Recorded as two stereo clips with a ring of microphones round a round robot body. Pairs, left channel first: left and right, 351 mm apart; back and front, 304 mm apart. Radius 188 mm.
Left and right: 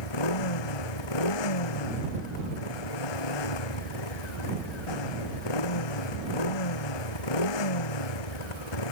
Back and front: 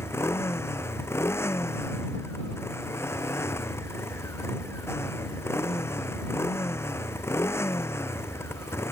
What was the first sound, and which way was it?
A motorcycle, 100° left.